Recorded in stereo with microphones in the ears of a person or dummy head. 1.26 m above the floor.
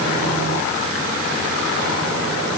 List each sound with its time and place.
Only background noise.